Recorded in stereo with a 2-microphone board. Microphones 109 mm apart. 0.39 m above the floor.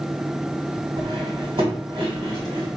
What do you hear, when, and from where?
1.0 s cutlery clinking: 55° right (ahead or behind), 1.7 m